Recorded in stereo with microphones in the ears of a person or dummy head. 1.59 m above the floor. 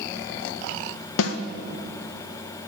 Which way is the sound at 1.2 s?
75° left (ahead or behind).